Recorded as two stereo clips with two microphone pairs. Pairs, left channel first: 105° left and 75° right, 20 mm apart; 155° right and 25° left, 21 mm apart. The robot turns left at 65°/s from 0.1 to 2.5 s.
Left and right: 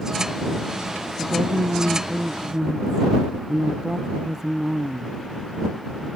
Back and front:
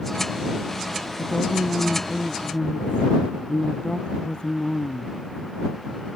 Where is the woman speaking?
50° right; by 6.1 s 135° right.